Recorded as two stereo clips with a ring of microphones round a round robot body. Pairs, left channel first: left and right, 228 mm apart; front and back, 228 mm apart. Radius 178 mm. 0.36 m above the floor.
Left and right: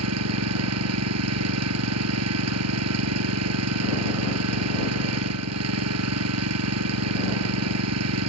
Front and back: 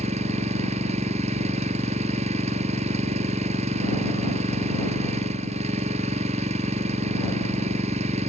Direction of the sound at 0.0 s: 110° right.